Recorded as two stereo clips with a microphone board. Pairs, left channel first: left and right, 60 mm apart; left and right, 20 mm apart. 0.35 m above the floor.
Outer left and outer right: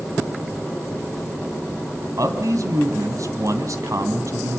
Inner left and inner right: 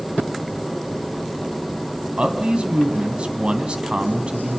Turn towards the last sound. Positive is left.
turn(degrees=-65)  # may be behind; listen again after turning